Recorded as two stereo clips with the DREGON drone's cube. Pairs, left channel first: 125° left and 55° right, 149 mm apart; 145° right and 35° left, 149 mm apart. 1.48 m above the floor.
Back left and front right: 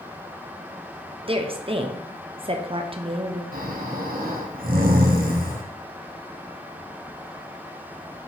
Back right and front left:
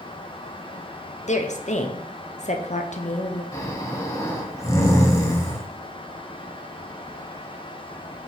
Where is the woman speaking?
110° right, 0.8 m.